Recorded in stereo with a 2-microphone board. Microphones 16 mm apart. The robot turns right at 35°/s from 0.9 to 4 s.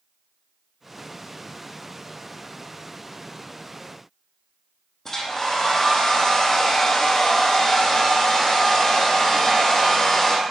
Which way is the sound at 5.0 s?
20° left (ahead or behind).